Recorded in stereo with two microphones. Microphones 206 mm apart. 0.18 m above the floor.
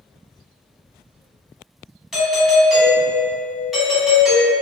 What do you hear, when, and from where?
2.1 s a doorbell: centre (ahead or behind), 1.9 m